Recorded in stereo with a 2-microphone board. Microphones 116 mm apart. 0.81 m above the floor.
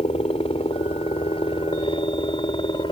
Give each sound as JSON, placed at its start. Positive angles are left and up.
{"t": 0.0, "sound": "a helicopter", "side_deg": 60}